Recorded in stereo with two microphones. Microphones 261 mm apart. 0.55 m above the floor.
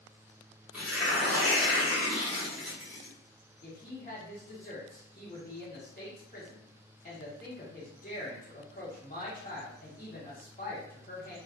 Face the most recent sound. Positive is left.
turn(degrees=30)  # may be behind; listen again after turning